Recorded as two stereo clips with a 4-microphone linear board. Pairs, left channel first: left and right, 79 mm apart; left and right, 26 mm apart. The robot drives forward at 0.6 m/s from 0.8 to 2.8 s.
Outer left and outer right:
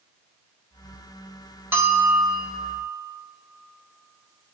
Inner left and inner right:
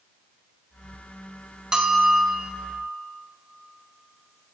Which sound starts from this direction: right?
A bell, at 1.7 s.